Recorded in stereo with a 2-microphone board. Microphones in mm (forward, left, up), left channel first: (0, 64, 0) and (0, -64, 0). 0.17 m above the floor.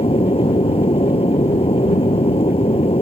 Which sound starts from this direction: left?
An aircraft, at 0.0 s.